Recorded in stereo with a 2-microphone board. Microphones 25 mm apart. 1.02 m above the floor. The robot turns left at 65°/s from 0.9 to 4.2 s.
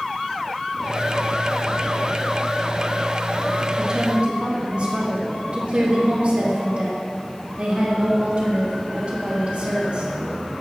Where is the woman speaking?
20° right (ahead or behind), 2.0 m; by 10.1 s 45° right (ahead or behind), 2.0 m.